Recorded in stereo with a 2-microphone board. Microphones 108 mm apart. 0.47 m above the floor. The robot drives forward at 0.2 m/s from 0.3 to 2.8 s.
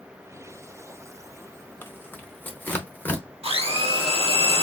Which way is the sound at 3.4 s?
65° right (ahead or behind).